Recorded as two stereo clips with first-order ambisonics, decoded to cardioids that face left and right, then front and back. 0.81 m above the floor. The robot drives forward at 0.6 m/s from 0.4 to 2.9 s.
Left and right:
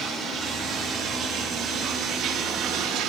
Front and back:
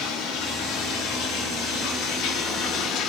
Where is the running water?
25° right, 3 m; by 3.1 s 45° right, 1.6 m.